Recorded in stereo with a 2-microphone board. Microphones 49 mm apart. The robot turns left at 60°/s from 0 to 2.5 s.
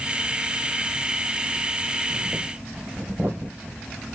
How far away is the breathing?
About 2 m.